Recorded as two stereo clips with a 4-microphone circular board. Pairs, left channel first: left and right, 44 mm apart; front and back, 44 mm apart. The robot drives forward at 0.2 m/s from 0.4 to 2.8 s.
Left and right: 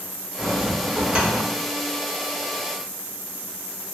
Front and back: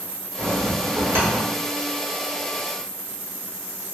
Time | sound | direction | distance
0.4 | a bell | 160° right | 1.3 m